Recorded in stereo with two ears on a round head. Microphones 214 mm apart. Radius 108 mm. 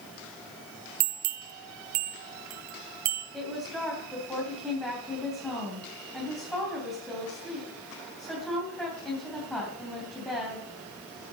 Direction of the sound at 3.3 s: Centre (ahead or behind).